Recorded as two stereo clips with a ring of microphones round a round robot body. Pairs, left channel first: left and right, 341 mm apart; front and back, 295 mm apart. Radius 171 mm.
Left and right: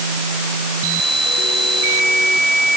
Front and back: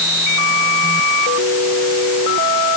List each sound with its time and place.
Only background noise.